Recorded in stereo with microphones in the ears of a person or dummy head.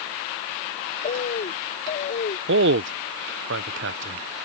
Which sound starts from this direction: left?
A bird, at 1.0 s.